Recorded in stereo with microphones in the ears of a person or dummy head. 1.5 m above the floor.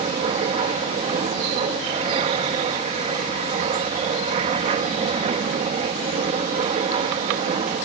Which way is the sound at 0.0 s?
35° right (ahead or behind).